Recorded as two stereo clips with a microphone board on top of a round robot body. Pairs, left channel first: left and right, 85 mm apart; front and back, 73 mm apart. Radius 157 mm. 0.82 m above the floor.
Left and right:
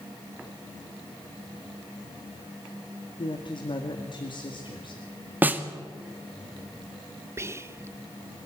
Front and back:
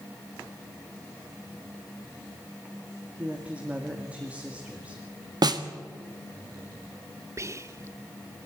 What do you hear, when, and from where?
3.2 s a woman speaking: 110° left, 2 m
5.4 s a snare drum: 160° right, 1.7 m
7.4 s whispering: 140° right, 1.1 m